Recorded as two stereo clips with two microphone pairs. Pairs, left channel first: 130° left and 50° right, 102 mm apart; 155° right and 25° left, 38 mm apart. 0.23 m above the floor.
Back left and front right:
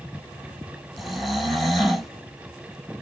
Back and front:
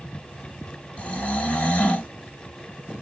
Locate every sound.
1.0 s snoring: 140° right, 1.1 m